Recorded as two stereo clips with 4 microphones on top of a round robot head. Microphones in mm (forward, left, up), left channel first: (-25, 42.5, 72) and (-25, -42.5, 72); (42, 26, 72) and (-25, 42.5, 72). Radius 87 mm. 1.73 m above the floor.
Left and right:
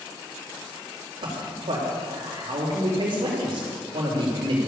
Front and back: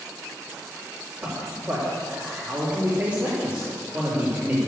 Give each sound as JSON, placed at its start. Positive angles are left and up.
{"t": 1.2, "sound": "a man speaking", "azimuth_deg": -120, "distance_m": 3.5}